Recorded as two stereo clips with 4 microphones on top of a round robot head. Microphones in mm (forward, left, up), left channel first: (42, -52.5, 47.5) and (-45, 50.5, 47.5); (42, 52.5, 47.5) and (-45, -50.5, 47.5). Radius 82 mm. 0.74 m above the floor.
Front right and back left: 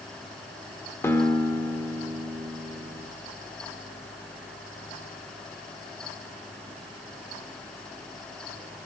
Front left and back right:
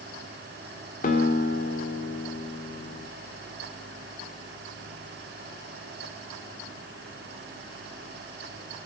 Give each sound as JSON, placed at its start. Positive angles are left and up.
{"t": 1.0, "sound": "a guitar", "azimuth_deg": 25, "distance_m": 1.5}